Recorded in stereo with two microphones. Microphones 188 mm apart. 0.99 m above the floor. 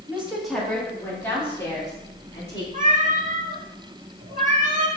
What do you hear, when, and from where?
0.1 s a woman speaking: 10° right (ahead or behind), 1.8 m; by 2.6 s 20° left (ahead or behind), 4.5 m
2.7 s a cat meowing: 45° right (ahead or behind), 1.1 m